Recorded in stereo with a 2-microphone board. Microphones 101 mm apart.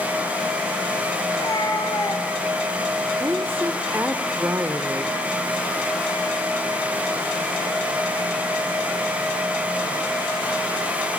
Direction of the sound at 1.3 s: 45° left (ahead or behind).